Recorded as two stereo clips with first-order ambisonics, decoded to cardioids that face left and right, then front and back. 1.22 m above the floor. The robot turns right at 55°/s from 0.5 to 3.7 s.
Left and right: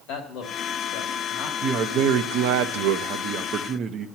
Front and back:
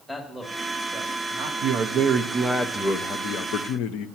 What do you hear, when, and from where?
0.1 s a man speaking: 100° left, 2.5 m; by 1.5 s 155° left, 2.5 m
1.6 s a man speaking: 145° right, 0.7 m; by 4.1 s 30° right, 0.7 m